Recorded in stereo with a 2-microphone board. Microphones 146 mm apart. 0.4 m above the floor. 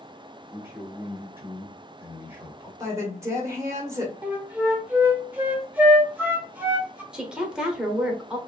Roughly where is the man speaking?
Centre.